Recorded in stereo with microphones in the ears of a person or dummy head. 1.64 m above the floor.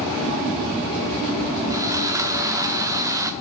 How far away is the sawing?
About 1.0 m.